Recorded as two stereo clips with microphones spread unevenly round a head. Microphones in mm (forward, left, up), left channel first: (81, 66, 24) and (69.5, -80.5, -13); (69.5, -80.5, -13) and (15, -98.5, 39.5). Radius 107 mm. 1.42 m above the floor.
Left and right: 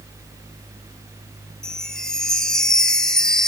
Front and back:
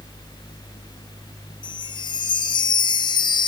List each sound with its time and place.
1.6 s a chime: 45° left, 1.3 m